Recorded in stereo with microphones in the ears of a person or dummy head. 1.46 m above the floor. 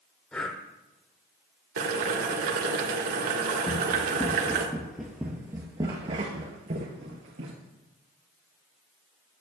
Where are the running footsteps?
15° left (ahead or behind), 2.5 m; by 7.5 s 45° right (ahead or behind), 2 m.